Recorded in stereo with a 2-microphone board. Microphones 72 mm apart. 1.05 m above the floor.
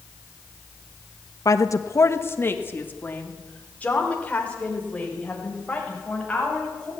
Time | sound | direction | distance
1.4 | a woman speaking | 55° left (ahead or behind) | 1.2 m